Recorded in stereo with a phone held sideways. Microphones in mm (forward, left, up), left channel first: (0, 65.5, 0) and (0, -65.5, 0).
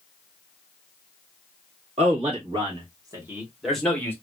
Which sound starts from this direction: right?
A man speaking, at 2.0 s.